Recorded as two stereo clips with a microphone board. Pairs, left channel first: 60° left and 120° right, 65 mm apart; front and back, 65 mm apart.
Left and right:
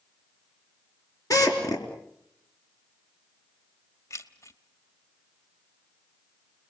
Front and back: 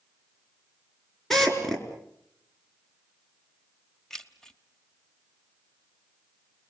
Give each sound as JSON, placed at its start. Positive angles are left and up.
{"t": 1.3, "sound": "a drill", "azimuth_deg": 85, "distance_m": 4.0}
{"t": 4.1, "sound": "keys jangling", "azimuth_deg": 80, "distance_m": 1.2}